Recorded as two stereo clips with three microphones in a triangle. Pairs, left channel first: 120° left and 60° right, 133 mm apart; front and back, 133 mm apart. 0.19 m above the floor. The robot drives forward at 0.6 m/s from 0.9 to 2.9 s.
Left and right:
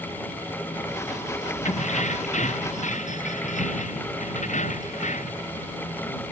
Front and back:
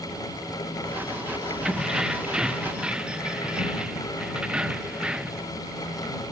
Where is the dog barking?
No dog barking in this recording.